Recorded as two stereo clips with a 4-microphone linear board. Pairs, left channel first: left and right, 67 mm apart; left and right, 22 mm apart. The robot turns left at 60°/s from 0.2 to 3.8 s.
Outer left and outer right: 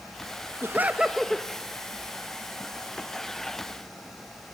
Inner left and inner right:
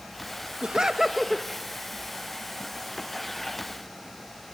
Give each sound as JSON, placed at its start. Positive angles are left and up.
{"t": 0.6, "sound": "laughter", "azimuth_deg": -140, "distance_m": 1.3}